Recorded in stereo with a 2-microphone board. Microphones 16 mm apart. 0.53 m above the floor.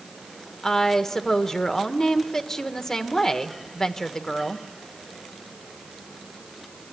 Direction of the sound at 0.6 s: 35° left (ahead or behind).